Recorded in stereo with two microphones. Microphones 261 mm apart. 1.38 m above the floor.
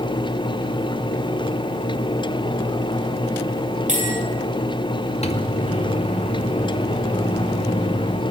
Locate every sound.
3.9 s a bell: 30° right (ahead or behind), 9.5 m
5.2 s a microwave: 25° left (ahead or behind), 2 m